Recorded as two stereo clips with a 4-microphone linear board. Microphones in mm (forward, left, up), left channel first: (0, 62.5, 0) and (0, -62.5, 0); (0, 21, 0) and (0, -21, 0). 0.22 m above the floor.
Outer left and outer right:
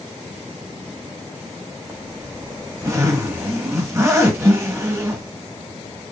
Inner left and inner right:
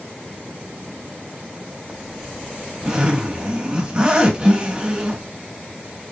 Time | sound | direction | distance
1.9 | a zipper | 25° right (ahead or behind) | 1.4 m